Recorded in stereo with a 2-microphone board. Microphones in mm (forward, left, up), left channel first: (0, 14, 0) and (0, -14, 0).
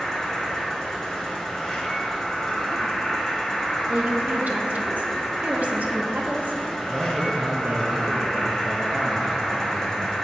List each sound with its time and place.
0.0 s an insect: 15° left (ahead or behind), 1.8 m
3.9 s a woman speaking: 65° right (ahead or behind), 1.0 m
6.9 s a man speaking: 65° right (ahead or behind), 0.8 m